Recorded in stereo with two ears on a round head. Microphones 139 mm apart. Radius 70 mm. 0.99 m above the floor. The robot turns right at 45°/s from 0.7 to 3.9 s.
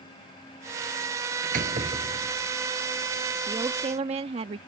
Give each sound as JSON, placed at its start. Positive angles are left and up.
{"t": 1.4, "sound": "a door slam", "azimuth_deg": -60}
{"t": 3.5, "sound": "a woman speaking", "side_deg": -20}